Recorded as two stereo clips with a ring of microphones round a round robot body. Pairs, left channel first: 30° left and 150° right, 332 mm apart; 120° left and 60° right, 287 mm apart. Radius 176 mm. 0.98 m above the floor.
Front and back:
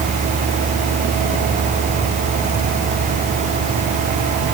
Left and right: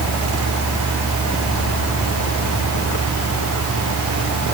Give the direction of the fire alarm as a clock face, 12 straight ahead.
No fire alarm in this recording.